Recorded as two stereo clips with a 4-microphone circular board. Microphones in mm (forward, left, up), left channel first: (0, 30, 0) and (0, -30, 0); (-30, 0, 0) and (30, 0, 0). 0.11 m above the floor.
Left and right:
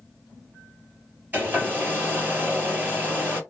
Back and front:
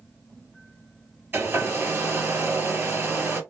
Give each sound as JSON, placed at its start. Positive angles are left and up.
{"t": 1.3, "sound": "a hair dryer", "azimuth_deg": -35, "distance_m": 2.5}